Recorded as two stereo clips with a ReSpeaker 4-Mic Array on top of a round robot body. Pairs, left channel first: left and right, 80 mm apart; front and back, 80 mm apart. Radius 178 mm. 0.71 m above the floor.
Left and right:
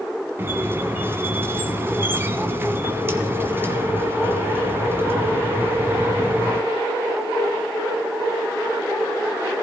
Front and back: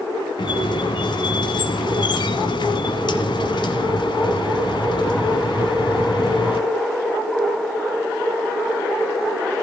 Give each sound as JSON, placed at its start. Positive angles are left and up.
{"t": 0.4, "sound": "a squeak", "azimuth_deg": -25, "distance_m": 1.3}